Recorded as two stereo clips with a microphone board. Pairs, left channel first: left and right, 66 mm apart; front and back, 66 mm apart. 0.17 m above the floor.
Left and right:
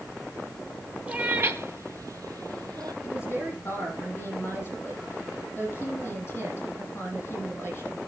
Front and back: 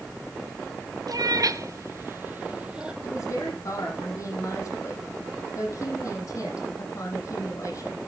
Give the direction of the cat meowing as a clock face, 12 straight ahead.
5 o'clock.